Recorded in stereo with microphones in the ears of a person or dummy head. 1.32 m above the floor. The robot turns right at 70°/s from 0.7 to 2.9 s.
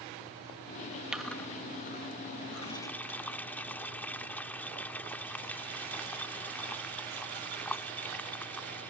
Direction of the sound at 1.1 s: 5° right (ahead or behind).